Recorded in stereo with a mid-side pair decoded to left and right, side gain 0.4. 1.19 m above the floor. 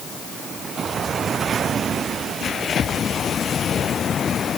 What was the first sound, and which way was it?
Only background noise.